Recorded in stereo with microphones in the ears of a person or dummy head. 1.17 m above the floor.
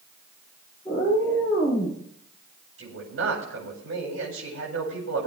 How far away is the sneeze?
No sneeze in this recording.